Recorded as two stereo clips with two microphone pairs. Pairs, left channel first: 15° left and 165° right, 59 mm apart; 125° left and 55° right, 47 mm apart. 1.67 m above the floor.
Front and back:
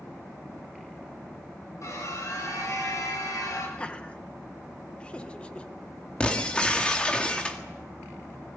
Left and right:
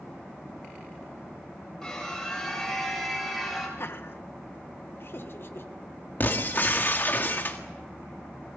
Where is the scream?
45° left, 8.5 m; by 3.7 s 30° left, 8 m.